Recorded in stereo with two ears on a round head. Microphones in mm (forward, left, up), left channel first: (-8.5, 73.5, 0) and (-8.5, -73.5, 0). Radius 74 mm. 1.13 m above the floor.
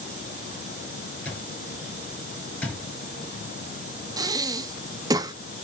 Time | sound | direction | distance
1.2 | an alarm clock | 10° left (ahead or behind) | 6.5 m
4.2 | breathing | 20° right (ahead or behind) | 0.6 m